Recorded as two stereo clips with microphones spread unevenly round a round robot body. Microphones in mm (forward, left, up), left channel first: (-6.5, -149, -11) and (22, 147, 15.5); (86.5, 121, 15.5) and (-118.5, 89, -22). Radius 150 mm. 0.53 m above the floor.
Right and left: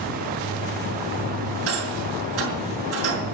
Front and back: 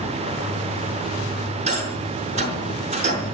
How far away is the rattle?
About 6 m.